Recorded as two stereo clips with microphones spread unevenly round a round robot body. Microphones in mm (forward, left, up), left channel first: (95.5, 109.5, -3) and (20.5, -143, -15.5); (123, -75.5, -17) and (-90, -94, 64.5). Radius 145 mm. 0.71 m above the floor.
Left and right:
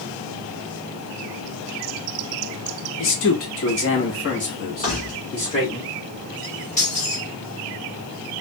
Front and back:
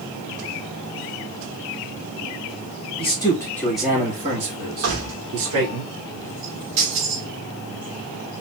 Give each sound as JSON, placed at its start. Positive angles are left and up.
{"t": 3.0, "sound": "a man speaking", "azimuth_deg": 45, "distance_m": 1.3}
{"t": 4.8, "sound": "keys jangling", "azimuth_deg": 140, "distance_m": 1.2}